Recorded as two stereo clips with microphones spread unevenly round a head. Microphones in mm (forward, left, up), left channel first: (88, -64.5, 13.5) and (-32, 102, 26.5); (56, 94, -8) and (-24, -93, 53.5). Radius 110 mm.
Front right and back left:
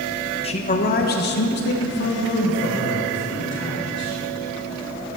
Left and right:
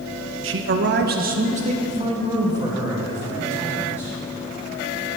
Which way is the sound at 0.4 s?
100° right.